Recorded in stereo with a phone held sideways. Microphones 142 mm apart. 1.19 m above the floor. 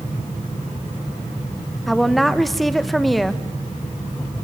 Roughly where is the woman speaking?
Centre.